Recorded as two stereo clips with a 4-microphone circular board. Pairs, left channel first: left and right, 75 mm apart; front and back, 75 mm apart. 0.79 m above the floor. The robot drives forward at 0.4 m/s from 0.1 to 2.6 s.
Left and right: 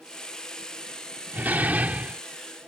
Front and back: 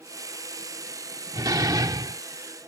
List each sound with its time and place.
1.3 s a door slam: 155° right; by 2.2 s 160° right